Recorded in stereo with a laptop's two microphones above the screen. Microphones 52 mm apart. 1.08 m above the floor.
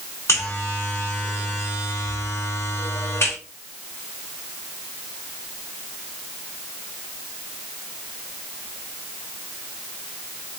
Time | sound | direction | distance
0.3 | a buzzer | 60° left (ahead or behind) | 3 m